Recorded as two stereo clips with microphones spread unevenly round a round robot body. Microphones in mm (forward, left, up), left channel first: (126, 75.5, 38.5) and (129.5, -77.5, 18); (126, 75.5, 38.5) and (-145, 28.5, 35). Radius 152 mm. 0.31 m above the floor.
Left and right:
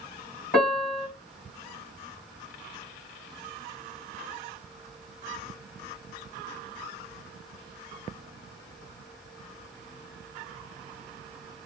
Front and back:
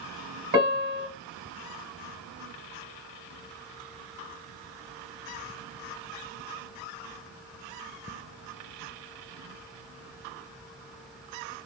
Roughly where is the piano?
Behind left.